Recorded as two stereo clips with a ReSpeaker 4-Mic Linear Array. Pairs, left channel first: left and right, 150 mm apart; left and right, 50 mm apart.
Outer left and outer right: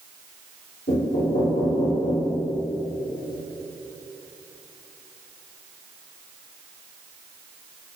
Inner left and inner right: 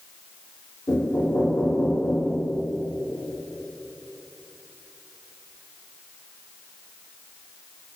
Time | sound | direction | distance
0.9 | knocking | 90° left | 3.5 m